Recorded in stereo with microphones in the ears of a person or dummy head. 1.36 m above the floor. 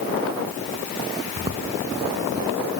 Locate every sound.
1.4 s footsteps: 35° right (ahead or behind), 5 m; by 2.5 s 40° right (ahead or behind), 6 m